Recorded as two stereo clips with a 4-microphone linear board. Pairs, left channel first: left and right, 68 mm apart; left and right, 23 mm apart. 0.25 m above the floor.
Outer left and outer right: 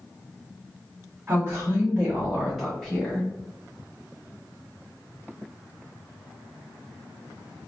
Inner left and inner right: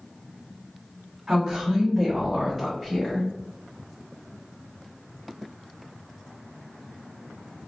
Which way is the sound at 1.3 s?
30° right (ahead or behind).